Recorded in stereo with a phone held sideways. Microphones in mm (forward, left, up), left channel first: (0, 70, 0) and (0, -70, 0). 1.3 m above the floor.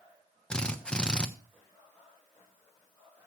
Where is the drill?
5° left (ahead or behind), 1.0 m.